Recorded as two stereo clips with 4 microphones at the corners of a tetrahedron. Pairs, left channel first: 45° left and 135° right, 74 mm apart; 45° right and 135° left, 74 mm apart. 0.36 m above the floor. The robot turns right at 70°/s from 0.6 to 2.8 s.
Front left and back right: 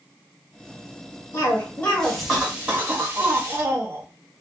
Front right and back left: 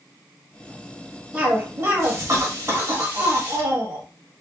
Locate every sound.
1.3 s a cough: 70° left, 1.5 m; by 4.0 s 170° left, 1.5 m